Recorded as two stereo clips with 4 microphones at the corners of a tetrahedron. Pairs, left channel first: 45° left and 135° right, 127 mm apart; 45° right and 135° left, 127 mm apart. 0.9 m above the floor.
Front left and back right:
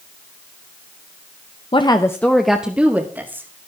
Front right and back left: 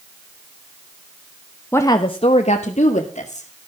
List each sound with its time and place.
1.7 s a woman speaking: 20° left, 1.0 m; by 3.5 s 65° right, 2.5 m